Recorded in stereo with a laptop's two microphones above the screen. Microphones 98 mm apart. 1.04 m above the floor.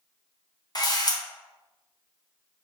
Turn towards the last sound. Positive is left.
turn(degrees=45)  # may be behind; listen again after turning